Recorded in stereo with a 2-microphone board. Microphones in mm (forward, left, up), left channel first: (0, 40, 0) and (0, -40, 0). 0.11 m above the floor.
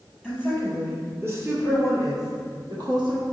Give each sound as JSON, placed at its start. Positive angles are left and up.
{"t": 0.2, "sound": "a woman speaking", "side_deg": -10, "distance_m": 3.5}